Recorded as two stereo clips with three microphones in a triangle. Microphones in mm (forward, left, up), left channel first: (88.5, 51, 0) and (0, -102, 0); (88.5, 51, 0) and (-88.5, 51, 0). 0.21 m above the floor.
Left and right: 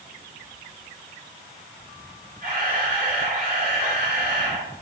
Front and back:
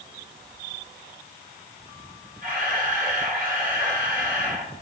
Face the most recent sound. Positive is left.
turn(degrees=-150)